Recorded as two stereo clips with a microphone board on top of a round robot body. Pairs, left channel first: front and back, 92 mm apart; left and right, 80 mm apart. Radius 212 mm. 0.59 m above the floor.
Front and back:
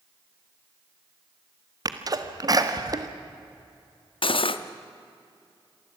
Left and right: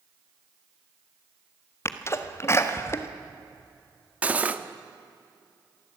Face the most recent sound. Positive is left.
turn(degrees=-20)